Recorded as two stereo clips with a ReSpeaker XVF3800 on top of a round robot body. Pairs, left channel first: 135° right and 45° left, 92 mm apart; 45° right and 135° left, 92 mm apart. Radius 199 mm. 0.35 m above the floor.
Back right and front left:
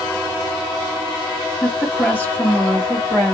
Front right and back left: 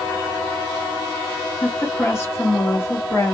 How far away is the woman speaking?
About 1.6 m.